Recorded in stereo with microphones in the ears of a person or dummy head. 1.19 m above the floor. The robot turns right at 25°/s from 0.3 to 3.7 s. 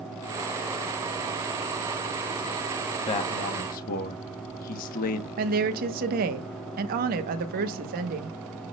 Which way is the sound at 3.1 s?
30° left (ahead or behind).